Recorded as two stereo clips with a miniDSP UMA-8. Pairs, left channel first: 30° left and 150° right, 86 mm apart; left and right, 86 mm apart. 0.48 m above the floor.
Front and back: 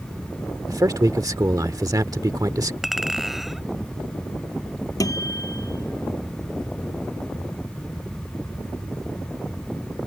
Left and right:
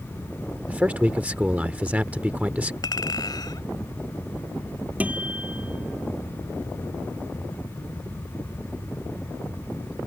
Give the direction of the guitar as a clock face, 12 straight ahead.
1 o'clock.